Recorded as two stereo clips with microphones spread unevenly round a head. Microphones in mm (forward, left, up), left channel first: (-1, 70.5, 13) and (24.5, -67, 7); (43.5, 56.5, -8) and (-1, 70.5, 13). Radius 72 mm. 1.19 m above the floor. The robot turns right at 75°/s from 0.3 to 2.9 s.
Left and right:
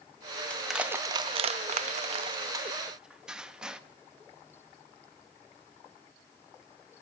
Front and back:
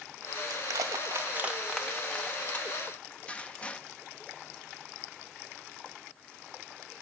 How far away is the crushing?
About 0.5 m.